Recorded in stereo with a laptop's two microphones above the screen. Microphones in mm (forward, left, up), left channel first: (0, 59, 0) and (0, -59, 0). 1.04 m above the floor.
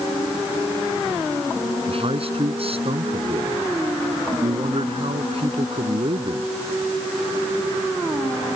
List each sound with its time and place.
1.9 s a man speaking: 55° right (ahead or behind)